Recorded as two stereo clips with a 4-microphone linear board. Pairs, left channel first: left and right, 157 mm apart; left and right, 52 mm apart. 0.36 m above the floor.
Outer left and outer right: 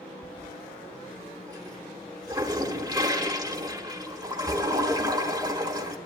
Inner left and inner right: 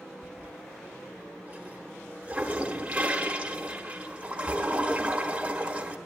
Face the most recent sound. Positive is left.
turn(degrees=-25)  # may be behind; listen again after turning